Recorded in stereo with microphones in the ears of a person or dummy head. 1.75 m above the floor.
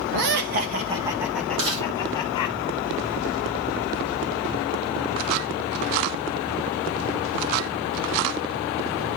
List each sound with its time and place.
0.1 s laughter: 60° right (ahead or behind), 1.1 m; by 2.5 s 25° left (ahead or behind), 1.8 m
1.6 s chewing: 80° right, 8 m